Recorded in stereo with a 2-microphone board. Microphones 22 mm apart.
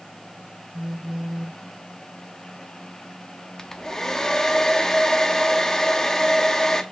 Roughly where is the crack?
No crack in this recording.